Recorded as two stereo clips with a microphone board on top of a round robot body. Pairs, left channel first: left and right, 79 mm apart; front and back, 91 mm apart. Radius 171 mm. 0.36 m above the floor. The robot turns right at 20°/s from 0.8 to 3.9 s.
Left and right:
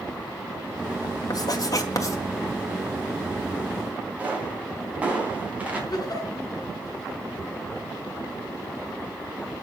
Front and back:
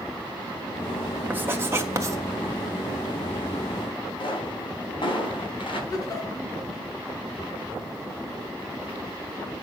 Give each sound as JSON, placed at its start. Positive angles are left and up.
{"t": 1.3, "sound": "writing", "azimuth_deg": 115, "distance_m": 1.7}
{"t": 4.2, "sound": "a pop", "azimuth_deg": -20, "distance_m": 4.5}
{"t": 5.9, "sound": "a giggle", "azimuth_deg": 50, "distance_m": 4.0}